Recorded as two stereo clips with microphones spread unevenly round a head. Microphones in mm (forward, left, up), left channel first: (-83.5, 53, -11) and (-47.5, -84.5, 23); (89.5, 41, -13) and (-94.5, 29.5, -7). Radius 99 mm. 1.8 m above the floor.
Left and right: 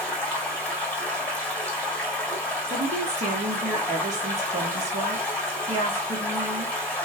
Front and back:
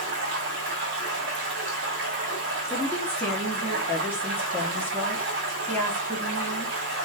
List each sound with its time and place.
0.0 s running water: 175° right, 1.7 m
2.7 s a woman speaking: 80° right, 1.3 m